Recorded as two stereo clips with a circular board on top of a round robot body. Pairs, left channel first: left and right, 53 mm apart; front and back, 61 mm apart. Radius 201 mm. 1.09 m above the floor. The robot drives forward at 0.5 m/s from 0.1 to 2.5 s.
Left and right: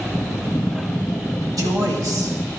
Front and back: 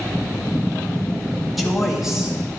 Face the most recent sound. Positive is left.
turn(degrees=-100)